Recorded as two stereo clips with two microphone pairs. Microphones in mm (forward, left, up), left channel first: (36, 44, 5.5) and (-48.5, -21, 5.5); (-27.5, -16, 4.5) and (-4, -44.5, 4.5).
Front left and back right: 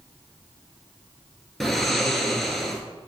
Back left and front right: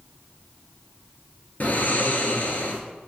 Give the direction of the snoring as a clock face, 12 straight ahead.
8 o'clock.